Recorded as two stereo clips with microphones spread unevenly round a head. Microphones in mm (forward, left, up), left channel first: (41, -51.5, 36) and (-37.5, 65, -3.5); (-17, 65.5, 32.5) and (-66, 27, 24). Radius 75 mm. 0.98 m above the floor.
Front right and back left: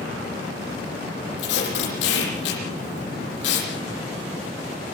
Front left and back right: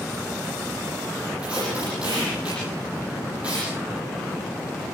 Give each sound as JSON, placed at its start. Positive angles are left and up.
{"t": 1.4, "sound": "tape being pulled", "azimuth_deg": -60, "distance_m": 9.0}